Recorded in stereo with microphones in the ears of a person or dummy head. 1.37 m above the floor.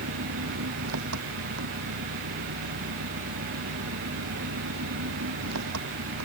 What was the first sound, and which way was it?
An engine running, 85° right.